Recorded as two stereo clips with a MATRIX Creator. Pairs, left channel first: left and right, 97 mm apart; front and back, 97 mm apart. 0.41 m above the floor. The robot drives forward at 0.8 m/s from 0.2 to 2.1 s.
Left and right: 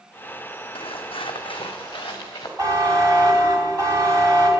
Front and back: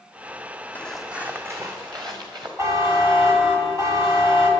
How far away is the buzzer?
About 2.5 m.